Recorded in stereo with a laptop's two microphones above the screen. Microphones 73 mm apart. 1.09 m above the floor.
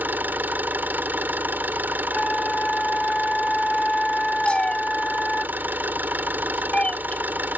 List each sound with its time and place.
0.0 s an engine running: 25° right (ahead or behind)
2.1 s a flute: 5° left (ahead or behind)
4.5 s a cat meowing: 15° left (ahead or behind)